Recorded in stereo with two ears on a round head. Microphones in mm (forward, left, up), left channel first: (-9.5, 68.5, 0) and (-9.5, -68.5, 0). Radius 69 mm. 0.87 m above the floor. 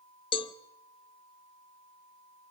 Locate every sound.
0.3 s a cowbell: 35° left (ahead or behind), 0.6 m